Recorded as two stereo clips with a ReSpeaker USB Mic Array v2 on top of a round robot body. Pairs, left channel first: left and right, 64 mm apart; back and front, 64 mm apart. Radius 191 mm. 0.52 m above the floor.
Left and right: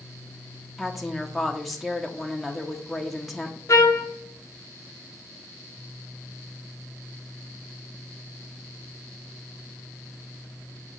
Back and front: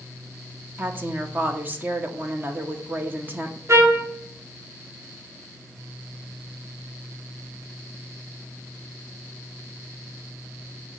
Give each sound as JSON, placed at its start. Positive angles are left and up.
{"t": 0.8, "sound": "a woman speaking", "azimuth_deg": 0, "distance_m": 1.3}
{"t": 3.7, "sound": "a trumpet", "azimuth_deg": 45, "distance_m": 1.2}